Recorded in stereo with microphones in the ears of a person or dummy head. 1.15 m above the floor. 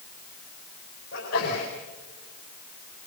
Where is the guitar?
I don't hear a guitar.